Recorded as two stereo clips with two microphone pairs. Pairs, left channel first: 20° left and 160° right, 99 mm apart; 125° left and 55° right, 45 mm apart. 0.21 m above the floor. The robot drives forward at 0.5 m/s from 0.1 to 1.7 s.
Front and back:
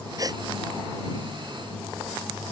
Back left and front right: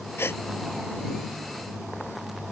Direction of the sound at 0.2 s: 150° left.